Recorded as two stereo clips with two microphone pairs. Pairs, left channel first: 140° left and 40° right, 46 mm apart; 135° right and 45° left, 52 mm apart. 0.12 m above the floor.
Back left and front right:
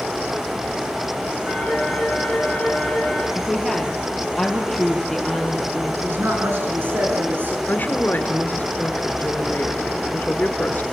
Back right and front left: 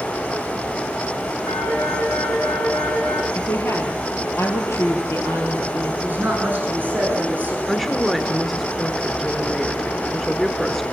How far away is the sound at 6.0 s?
About 5.5 m.